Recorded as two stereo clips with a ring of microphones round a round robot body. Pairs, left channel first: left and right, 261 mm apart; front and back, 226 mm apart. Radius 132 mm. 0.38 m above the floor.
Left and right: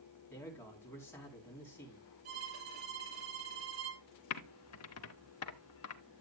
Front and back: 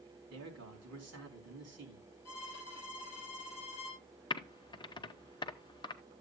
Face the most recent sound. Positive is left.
turn(degrees=70)